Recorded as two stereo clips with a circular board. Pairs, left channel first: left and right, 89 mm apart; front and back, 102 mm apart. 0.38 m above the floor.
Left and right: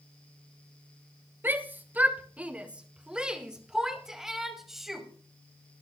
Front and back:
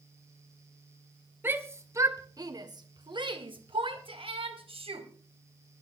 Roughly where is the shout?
Behind right.